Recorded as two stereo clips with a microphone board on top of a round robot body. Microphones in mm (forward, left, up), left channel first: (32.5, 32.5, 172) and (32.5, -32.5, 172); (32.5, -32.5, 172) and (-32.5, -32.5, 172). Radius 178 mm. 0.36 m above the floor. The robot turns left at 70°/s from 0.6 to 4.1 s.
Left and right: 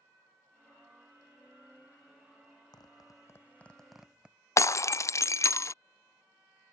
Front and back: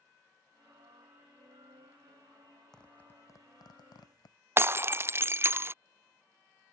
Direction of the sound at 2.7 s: 85° left.